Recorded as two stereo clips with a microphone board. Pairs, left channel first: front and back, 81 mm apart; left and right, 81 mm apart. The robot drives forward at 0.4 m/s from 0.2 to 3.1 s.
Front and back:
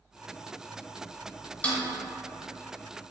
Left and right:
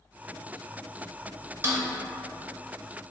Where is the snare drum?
55° right, 0.6 m; by 1.8 s 70° right, 0.6 m.